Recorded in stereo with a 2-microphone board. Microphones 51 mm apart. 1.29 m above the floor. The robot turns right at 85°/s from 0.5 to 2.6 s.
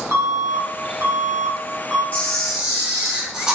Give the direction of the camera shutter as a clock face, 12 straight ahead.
7 o'clock.